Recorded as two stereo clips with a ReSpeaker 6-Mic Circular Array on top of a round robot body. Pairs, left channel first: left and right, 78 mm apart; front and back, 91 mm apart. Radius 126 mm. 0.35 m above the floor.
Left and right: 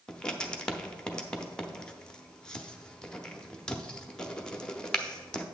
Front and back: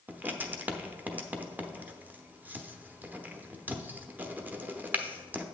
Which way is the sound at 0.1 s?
150° left.